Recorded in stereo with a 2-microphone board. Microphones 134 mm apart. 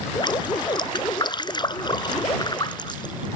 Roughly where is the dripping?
Left.